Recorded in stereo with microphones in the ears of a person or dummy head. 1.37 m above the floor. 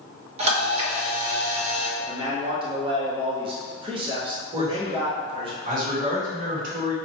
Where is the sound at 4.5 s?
40° right (ahead or behind), 1.7 m.